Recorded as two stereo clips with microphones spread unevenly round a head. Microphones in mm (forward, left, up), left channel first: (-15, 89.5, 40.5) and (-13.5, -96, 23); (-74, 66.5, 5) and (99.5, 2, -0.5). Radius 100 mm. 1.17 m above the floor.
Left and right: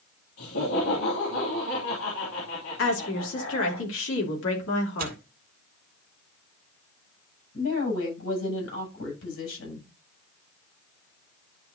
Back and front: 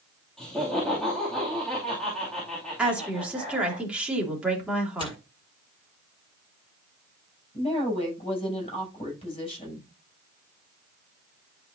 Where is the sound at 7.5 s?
100° left, 7 m.